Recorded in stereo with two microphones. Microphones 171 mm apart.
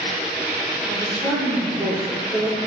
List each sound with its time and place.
0.9 s a woman speaking: 5° right (ahead or behind), 4.5 m